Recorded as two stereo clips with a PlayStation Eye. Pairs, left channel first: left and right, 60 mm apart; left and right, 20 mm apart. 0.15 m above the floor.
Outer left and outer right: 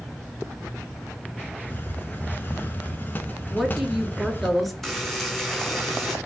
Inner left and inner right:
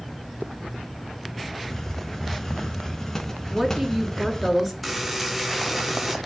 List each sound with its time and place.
1.7 s a hiss: 30° left (ahead or behind), 0.9 m
3.5 s a woman speaking: centre (ahead or behind), 1.9 m
4.8 s a buzzer: centre (ahead or behind), 2 m